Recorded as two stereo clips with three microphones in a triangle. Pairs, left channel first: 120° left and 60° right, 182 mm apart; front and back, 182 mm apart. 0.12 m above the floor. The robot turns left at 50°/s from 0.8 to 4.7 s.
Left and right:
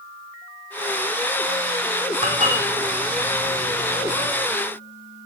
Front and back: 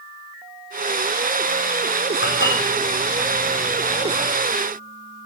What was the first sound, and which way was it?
Dishes clattering, 5° right.